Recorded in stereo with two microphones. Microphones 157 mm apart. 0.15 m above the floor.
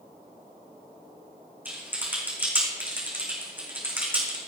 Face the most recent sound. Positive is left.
turn(degrees=-10)  # may be behind; listen again after turning